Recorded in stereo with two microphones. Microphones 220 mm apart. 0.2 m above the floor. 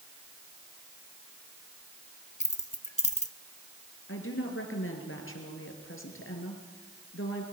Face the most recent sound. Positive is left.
turn(degrees=70)  # may be behind; listen again after turning